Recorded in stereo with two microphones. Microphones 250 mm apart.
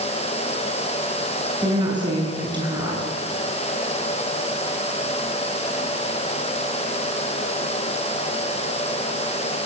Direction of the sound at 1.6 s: 20° right (ahead or behind).